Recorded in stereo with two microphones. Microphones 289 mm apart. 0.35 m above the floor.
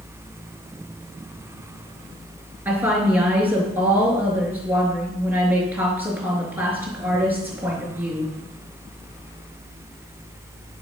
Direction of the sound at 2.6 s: 5° right (ahead or behind).